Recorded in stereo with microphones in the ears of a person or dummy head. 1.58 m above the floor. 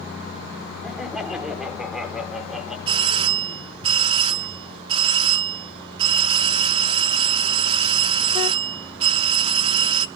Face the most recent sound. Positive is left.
turn(degrees=-30)  # may be behind; listen again after turning